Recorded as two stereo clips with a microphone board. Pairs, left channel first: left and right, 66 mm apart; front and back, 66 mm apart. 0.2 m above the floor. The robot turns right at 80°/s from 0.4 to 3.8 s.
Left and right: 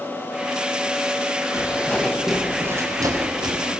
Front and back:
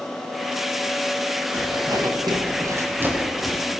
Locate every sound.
1.5 s footsteps: 135° left, 8 m; by 3.7 s 70° right, 7.5 m